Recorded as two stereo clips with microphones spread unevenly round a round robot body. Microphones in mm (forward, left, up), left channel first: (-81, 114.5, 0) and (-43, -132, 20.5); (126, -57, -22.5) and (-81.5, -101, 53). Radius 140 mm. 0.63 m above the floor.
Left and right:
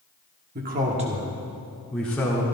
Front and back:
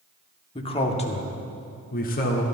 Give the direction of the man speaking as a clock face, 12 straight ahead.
1 o'clock.